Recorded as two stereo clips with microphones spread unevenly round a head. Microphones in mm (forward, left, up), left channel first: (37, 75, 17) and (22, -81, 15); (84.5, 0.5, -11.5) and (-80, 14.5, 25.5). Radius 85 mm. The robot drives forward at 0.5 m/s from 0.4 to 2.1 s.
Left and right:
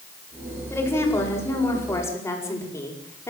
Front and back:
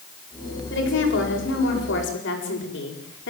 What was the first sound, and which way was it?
A woman speaking, 10° left.